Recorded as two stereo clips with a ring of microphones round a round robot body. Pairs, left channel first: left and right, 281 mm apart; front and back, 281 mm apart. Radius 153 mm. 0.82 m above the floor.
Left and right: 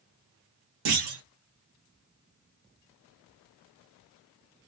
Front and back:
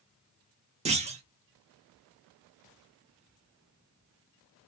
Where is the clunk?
110° right, 1.0 m.